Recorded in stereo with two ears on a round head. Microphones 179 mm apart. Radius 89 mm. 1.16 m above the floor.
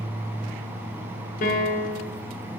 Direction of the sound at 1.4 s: 45° left (ahead or behind).